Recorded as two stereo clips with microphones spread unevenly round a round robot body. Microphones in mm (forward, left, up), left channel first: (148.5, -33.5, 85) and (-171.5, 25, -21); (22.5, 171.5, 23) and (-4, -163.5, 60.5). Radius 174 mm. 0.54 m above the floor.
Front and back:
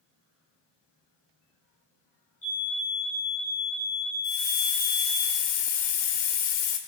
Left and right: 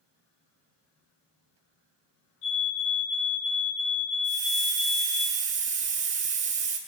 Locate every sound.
2.4 s a fire alarm: 65° left, 5.5 m
4.2 s a hiss: 25° right, 2 m